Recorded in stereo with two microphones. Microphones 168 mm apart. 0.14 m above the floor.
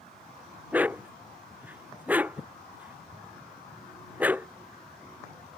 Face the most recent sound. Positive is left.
turn(degrees=-10)  # may be behind; listen again after turning